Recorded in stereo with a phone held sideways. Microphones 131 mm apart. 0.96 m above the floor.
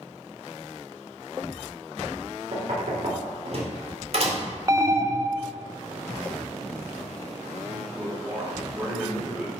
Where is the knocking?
50° right (ahead or behind), 2 m.